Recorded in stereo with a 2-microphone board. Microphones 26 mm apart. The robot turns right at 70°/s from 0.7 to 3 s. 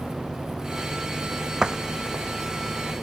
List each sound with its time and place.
1.6 s a door slam: 30° right (ahead or behind); by 2.3 s 15° left (ahead or behind)